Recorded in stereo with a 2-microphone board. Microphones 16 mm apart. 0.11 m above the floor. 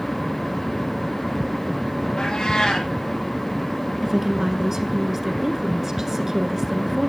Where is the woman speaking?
25° right (ahead or behind), 1.2 m.